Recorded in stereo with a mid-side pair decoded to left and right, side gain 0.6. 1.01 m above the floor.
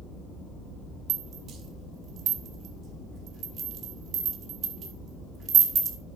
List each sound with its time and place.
1.1 s a rattle: 50° right, 1.7 m